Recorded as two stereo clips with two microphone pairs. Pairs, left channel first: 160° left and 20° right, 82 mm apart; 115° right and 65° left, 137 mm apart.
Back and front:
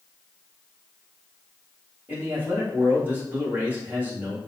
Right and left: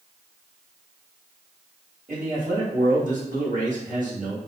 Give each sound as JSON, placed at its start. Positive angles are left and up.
{"t": 2.1, "sound": "a man speaking", "azimuth_deg": 45, "distance_m": 1.5}